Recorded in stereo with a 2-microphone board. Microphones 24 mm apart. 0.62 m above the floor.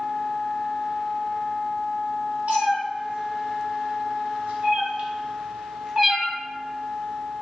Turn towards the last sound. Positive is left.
turn(degrees=10)  # may be behind; listen again after turning